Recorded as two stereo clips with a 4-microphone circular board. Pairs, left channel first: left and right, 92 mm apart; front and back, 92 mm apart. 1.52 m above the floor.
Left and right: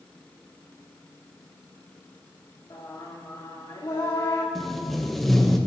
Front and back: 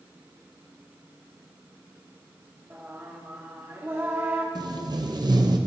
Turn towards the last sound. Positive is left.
turn(degrees=180)